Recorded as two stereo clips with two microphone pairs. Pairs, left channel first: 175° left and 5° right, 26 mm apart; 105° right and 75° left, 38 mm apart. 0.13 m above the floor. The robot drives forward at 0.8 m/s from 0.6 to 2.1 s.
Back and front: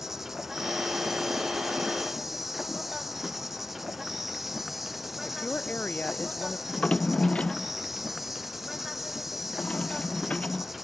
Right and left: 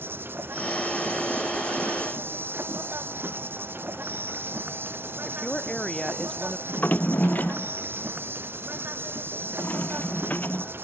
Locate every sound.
0.0 s an insect: 75° left
5.2 s a woman speaking: straight behind
6.7 s a drawer: 140° right